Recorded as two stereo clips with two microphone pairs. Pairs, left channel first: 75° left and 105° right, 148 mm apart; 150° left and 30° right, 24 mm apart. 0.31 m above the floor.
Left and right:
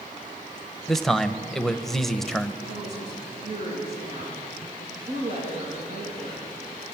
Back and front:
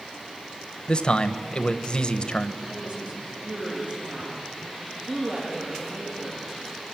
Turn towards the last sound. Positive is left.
turn(degrees=-65)